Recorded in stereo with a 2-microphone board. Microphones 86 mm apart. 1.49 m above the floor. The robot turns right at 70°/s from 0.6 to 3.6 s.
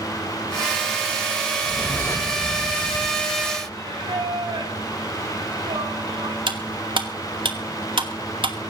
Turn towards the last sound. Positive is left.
turn(degrees=-75)  # may be behind; listen again after turning